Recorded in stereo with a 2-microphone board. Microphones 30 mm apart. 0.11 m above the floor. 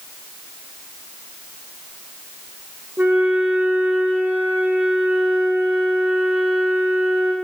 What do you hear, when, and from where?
3.0 s a flute: 75° right (ahead or behind), 7.5 m